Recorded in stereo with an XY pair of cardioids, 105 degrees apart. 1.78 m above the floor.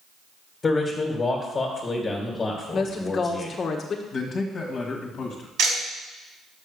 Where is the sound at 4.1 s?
50° left, 1.9 m.